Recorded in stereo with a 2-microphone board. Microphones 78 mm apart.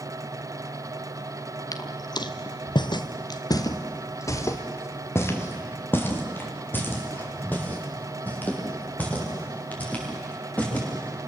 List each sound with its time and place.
1.7 s footsteps: 50° left (ahead or behind), 1.4 m; by 10.8 s 20° left (ahead or behind), 8.5 m